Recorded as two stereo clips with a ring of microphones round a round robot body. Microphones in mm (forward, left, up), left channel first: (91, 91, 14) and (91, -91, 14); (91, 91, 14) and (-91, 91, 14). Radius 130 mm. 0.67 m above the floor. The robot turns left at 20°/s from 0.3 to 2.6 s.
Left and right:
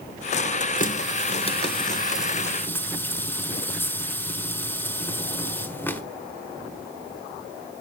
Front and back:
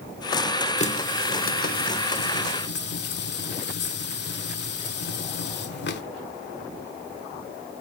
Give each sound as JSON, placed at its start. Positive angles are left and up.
{"t": 0.8, "sound": "a running tap", "azimuth_deg": 50, "distance_m": 1.8}